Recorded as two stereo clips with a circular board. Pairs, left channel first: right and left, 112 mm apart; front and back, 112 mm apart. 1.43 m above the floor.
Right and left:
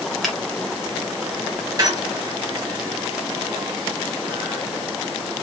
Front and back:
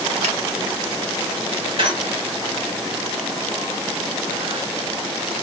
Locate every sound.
0.2 s a finger snap: straight behind, 1.8 m
1.8 s a squeak: 145° left, 2.5 m